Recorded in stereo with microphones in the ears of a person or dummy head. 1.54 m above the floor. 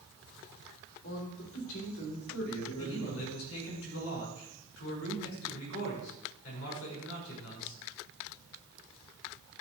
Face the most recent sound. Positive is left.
turn(degrees=85)